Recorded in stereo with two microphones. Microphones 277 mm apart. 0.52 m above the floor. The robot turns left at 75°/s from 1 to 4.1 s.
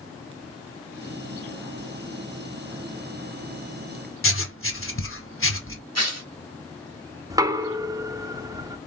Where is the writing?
50° left (ahead or behind), 0.8 m.